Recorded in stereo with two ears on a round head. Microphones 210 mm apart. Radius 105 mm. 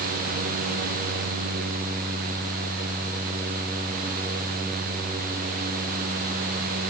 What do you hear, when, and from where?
Only background noise.